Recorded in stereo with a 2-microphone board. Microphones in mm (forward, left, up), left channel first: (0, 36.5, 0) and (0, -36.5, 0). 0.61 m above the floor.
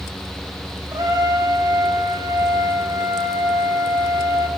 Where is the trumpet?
70° right (ahead or behind), 2.5 m.